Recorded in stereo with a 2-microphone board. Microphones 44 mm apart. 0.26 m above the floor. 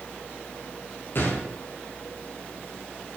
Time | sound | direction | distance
1.1 | a gunshot | 55° left (ahead or behind) | 3.5 m